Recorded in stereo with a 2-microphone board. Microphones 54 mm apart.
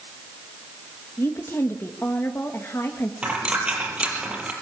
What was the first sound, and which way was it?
A woman speaking, 50° left (ahead or behind).